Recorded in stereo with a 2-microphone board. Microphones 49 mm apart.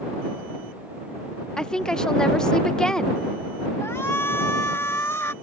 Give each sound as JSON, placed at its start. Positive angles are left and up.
{"t": 1.6, "sound": "a woman speaking", "side_deg": 15}
{"t": 3.8, "sound": "a shout", "side_deg": 70}